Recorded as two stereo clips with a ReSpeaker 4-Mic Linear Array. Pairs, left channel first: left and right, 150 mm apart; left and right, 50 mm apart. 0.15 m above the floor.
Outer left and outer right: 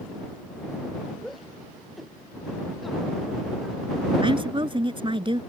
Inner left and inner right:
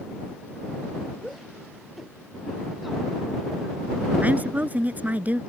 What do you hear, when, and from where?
1.2 s a shout: centre (ahead or behind)
4.2 s a woman speaking: 35° right (ahead or behind)